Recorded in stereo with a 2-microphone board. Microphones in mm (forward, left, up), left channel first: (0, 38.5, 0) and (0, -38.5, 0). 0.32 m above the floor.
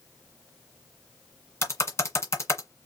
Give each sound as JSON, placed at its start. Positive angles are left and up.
{"t": 1.6, "sound": "typing on a keyboard", "side_deg": 35, "distance_m": 2.0}